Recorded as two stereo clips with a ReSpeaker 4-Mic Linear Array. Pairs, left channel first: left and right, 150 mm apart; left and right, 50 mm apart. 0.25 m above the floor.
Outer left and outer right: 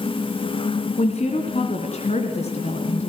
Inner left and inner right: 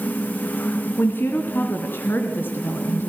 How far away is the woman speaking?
About 2.5 m.